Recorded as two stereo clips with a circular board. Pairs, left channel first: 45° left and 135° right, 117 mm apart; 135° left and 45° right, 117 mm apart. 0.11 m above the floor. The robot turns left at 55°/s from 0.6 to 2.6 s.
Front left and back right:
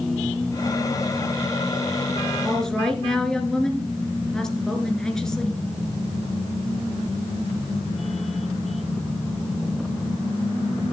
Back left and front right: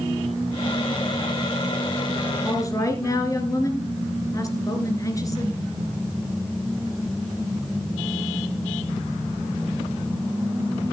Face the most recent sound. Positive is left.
turn(degrees=125)